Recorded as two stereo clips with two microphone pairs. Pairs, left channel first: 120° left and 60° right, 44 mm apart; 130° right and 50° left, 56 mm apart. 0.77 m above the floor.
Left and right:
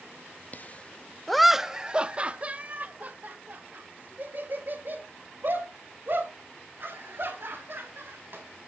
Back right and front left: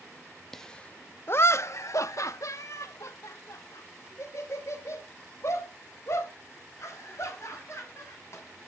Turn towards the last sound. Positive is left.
turn(degrees=-95)